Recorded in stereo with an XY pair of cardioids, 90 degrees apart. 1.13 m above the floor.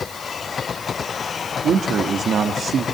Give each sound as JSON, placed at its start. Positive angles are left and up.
{"t": 1.6, "sound": "a man speaking", "azimuth_deg": -60, "distance_m": 1.6}